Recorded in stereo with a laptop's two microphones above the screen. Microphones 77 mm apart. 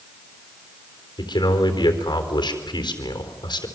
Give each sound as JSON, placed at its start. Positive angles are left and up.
{"t": 1.2, "sound": "a man speaking", "side_deg": 75, "distance_m": 3.5}